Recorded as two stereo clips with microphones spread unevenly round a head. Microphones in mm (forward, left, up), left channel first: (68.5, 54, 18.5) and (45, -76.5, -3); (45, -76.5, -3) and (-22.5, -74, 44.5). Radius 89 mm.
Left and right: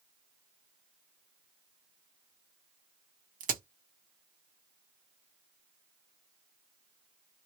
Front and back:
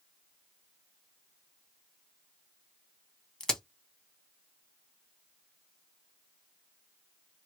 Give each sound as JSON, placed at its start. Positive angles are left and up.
{"t": 3.4, "sound": "a crack", "azimuth_deg": -115, "distance_m": 1.2}